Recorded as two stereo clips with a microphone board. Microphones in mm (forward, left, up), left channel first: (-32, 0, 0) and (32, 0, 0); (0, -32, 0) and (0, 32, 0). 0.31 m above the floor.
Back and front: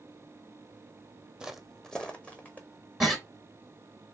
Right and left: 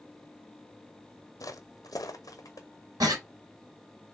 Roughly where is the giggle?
Left.